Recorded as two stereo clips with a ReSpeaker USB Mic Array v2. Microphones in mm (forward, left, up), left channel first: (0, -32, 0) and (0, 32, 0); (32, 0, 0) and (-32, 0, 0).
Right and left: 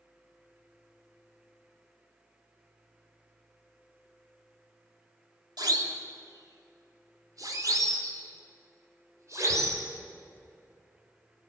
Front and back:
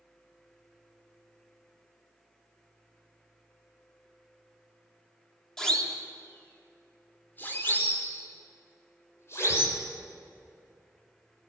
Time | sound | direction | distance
5.6 | a siren | 85° left | 3.5 m